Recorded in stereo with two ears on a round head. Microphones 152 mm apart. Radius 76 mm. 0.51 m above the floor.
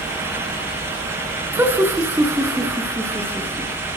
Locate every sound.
1.5 s laughter: 10° right (ahead or behind), 5 m; by 3.7 s 15° right (ahead or behind), 6 m